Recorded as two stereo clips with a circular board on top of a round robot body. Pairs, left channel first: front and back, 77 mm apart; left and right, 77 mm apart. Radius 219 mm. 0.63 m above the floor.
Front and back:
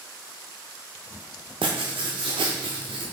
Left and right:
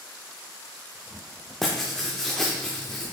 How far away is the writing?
About 0.5 m.